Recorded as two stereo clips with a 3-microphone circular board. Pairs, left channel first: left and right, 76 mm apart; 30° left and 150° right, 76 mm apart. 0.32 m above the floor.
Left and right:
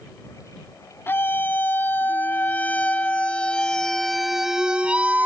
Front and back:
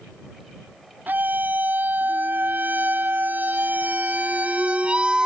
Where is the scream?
150° left; by 5.3 s 90° right.